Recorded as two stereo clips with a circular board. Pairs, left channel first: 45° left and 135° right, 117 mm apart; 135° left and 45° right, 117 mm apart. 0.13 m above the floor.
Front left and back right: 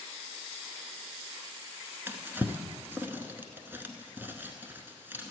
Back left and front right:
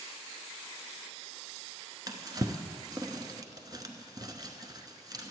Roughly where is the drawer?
Right.